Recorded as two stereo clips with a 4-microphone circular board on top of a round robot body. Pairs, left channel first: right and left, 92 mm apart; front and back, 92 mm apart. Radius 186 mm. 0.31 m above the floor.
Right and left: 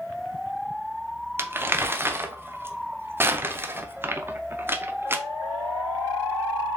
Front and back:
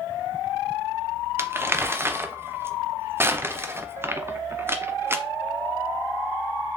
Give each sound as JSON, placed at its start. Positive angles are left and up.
{"t": 1.4, "sound": "crumpling", "azimuth_deg": 135, "distance_m": 0.8}